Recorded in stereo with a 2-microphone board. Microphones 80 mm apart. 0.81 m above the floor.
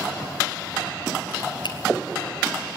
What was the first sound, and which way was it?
A finger snap, 70° left (ahead or behind).